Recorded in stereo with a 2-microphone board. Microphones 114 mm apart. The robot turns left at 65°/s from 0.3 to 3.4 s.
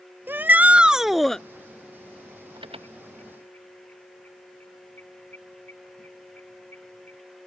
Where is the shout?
20° right (ahead or behind); by 1.4 s 5° left (ahead or behind).